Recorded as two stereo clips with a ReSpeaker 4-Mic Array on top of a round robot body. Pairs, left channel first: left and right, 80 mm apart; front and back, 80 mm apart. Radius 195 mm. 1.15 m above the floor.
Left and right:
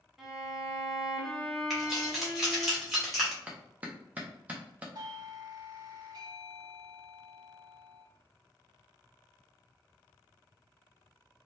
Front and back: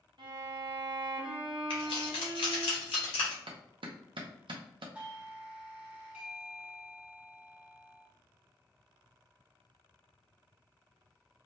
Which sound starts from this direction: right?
A doorbell, at 5.0 s.